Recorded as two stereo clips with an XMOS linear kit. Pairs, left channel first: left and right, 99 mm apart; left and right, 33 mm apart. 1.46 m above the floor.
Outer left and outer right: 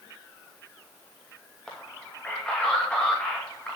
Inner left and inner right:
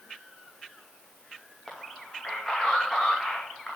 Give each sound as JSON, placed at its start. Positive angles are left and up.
{"t": 1.7, "sound": "a man speaking", "side_deg": 10, "distance_m": 2.0}